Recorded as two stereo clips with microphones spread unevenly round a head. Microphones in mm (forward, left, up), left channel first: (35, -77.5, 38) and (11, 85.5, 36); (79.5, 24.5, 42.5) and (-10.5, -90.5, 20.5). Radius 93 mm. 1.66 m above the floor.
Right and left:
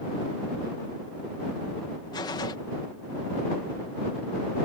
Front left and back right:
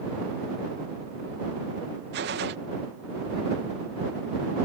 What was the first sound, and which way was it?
A gunshot, 150° right.